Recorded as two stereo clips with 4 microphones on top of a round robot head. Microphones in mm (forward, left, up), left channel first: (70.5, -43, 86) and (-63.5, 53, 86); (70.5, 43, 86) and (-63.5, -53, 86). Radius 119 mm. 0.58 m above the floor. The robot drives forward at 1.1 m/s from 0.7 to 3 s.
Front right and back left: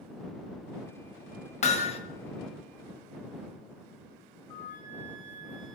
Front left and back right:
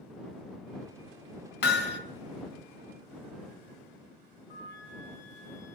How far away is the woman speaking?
No woman speaking in this recording.